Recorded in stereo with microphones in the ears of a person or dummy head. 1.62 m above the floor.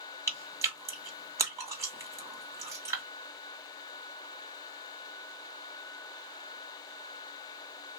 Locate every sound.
0.3 s chewing: 20° right (ahead or behind), 1.7 m